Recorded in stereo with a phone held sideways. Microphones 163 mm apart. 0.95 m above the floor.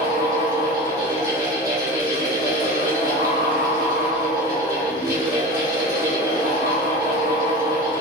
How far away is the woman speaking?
No woman speaking in this recording.